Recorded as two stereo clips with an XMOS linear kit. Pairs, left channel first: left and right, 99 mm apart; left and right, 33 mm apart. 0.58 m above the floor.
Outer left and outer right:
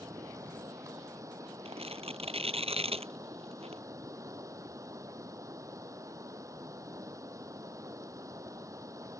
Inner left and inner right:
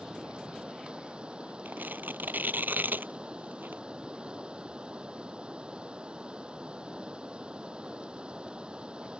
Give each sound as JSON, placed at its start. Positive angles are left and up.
{"t": 0.0, "sound": "running water", "side_deg": -35}
{"t": 1.6, "sound": "tearing paper", "side_deg": -80}